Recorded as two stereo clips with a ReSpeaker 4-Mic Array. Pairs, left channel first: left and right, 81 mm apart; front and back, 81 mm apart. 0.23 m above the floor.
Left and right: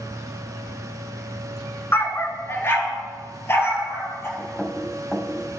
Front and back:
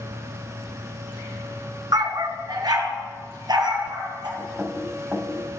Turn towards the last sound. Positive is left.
turn(degrees=175)